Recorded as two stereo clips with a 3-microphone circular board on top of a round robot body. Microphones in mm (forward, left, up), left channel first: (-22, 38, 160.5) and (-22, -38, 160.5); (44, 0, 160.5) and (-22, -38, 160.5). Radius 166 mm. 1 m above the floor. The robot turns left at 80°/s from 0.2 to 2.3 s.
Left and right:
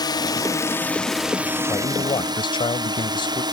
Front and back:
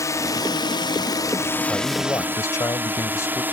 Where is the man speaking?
135° left; by 3.4 s 85° left.